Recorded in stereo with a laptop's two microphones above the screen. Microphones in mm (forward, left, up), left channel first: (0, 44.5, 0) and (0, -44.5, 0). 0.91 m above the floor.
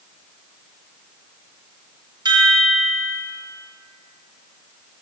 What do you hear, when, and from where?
2.2 s a chime: 55° right (ahead or behind), 1.0 m